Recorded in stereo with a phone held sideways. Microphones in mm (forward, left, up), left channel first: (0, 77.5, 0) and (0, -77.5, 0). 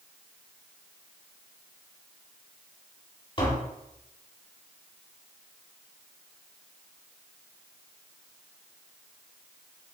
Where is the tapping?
35° left (ahead or behind), 3 m.